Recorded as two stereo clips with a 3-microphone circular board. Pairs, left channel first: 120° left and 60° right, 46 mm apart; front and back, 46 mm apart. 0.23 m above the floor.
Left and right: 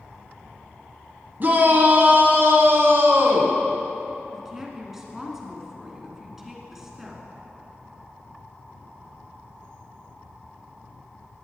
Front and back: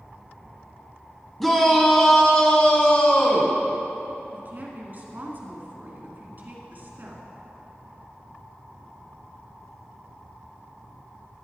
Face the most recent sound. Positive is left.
turn(degrees=-140)